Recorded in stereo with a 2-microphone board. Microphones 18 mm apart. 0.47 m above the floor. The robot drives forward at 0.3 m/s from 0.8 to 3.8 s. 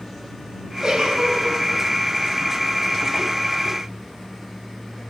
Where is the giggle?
45° right (ahead or behind), 6.5 m.